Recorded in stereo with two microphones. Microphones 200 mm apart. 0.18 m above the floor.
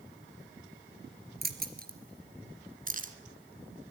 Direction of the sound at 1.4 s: 50° right (ahead or behind).